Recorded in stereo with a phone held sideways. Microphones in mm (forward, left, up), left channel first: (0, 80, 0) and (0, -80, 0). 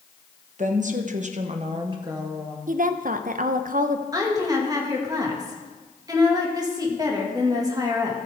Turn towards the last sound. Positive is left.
turn(degrees=-25)  # may be behind; listen again after turning